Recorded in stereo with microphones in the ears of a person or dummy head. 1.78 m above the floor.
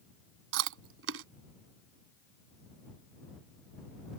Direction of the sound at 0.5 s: 70° right (ahead or behind).